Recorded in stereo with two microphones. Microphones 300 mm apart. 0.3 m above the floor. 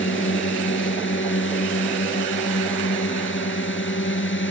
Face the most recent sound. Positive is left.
turn(degrees=40)  # may be behind; listen again after turning